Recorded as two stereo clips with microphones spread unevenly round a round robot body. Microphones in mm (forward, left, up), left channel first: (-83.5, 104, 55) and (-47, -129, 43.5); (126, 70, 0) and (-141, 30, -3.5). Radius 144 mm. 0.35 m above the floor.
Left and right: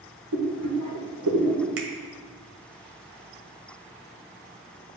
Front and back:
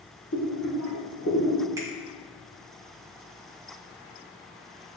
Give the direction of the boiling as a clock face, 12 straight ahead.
2 o'clock.